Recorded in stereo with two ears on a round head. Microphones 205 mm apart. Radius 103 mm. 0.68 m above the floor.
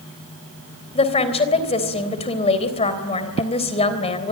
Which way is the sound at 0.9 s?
25° left (ahead or behind).